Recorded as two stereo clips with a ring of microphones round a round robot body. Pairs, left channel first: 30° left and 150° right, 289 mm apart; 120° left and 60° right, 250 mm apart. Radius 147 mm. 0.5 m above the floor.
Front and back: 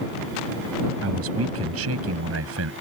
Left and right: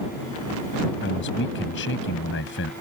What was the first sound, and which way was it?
A man speaking, 170° left.